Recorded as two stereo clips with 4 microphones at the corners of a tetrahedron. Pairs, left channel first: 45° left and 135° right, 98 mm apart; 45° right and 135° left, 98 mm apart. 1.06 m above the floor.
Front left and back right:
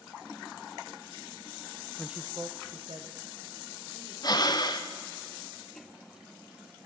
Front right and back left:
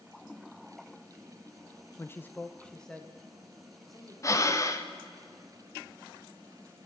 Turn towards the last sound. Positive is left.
turn(degrees=5)